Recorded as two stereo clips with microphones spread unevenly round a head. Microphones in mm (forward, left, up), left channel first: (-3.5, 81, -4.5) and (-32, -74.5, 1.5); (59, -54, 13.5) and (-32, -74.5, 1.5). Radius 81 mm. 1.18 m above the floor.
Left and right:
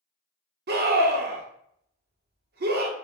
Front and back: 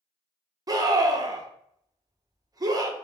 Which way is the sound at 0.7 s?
120° right.